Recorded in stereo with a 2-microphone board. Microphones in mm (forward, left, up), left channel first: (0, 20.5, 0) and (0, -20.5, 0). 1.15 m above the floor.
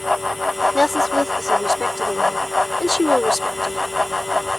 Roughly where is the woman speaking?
Centre.